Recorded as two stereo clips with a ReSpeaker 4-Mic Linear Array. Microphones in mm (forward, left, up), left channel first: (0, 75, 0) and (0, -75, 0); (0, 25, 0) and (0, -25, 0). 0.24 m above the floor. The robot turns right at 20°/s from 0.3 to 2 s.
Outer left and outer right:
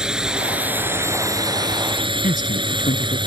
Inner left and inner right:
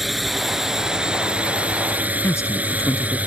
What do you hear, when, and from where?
0.0 s a drone: 5° right (ahead or behind); by 3.3 s 30° right (ahead or behind)
2.2 s a man speaking: 65° left (ahead or behind)